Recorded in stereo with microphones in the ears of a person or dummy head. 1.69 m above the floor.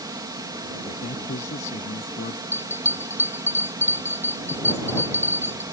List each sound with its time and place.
0.0 s a fan: 20° right (ahead or behind)
1.0 s a man speaking: 40° left (ahead or behind)
2.5 s a bell: 10° right (ahead or behind)